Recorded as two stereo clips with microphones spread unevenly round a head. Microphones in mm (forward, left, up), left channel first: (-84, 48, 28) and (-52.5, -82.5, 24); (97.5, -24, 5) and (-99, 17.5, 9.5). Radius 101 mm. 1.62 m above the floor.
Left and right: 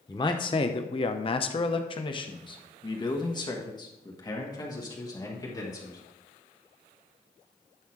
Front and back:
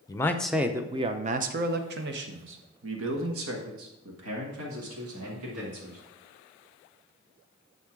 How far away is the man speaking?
About 0.7 m.